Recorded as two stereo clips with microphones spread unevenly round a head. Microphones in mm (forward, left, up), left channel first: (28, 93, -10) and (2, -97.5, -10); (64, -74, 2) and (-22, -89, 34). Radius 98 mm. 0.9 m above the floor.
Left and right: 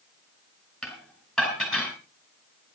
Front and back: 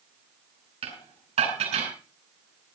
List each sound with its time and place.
0.8 s dishes clattering: 175° left, 5 m